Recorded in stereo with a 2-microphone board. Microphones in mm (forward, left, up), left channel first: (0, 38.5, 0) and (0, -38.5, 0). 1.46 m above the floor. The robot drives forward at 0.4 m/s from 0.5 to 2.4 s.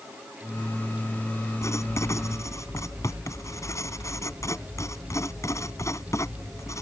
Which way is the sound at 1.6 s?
40° left (ahead or behind).